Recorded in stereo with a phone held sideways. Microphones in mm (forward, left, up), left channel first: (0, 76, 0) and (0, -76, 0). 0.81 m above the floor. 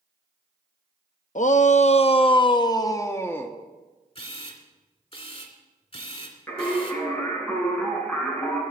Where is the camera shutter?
40° left (ahead or behind), 2.5 m.